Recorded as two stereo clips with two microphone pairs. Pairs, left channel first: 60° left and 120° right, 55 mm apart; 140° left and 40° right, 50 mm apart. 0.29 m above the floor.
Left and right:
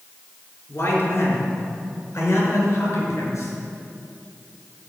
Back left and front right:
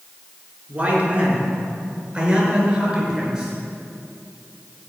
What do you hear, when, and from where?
0.7 s a man speaking: 25° left, 4 m; by 3.5 s 40° left, 5.5 m